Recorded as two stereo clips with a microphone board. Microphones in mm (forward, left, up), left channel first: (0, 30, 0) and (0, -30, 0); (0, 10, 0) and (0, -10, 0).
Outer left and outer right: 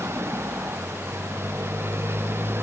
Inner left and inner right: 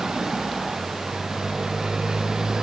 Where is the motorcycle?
45° right (ahead or behind); by 2.6 s 40° right (ahead or behind).